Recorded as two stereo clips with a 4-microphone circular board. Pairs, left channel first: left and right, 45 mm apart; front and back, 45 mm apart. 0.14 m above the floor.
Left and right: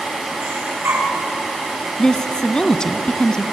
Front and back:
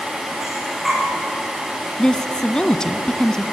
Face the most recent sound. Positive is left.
turn(degrees=45)